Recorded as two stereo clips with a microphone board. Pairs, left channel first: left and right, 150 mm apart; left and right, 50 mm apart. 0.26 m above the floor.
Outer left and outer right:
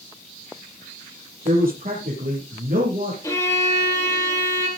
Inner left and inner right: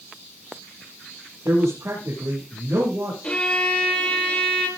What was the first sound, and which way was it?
A man speaking, 80° right.